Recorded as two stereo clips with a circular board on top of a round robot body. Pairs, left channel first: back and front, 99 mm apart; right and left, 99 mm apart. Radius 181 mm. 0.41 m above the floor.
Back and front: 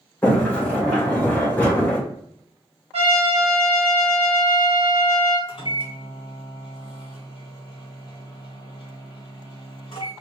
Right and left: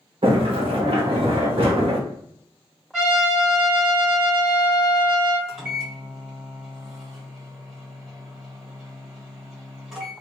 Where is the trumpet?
5° left, 1.8 m.